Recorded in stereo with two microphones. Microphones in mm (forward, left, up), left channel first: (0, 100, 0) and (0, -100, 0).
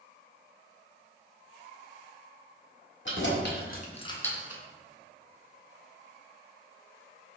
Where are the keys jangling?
70° left (ahead or behind), 1.2 m; by 4.6 s 15° right (ahead or behind), 0.7 m.